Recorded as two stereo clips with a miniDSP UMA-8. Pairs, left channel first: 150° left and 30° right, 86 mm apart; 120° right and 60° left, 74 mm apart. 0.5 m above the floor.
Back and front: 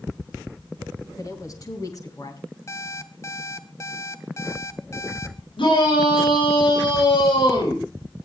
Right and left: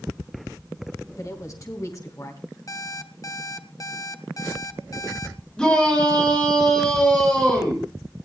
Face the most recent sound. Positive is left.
turn(degrees=165)